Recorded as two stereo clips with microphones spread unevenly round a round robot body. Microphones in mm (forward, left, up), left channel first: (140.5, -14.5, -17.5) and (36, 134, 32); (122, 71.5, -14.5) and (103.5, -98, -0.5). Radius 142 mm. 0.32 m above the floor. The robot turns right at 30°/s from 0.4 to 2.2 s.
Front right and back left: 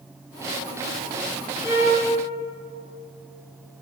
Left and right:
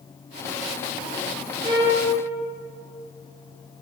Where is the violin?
170° right, 1.3 m; by 2.0 s 155° right, 1.3 m.